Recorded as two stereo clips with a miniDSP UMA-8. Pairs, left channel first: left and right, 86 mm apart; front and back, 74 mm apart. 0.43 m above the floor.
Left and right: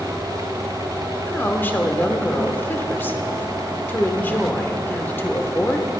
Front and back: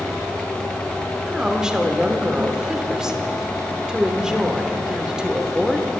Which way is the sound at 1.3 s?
110° left.